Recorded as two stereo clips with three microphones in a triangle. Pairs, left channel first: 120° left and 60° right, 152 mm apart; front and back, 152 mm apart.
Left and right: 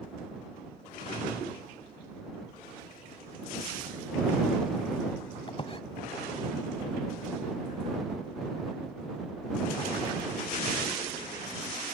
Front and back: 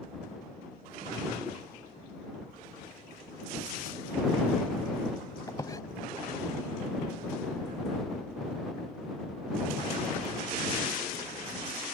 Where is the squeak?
70° left.